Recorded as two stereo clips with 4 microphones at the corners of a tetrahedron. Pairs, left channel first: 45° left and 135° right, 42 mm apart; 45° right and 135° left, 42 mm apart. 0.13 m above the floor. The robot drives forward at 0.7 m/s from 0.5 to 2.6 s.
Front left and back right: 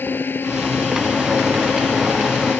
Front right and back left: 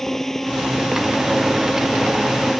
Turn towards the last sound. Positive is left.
turn(degrees=35)